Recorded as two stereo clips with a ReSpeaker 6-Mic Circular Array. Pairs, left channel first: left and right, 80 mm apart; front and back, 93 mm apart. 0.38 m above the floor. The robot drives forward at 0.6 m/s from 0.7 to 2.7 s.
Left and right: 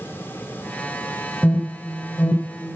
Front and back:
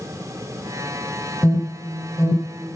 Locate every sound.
1.4 s an alarm: 35° left, 2.5 m; by 2.8 s 50° left, 2.5 m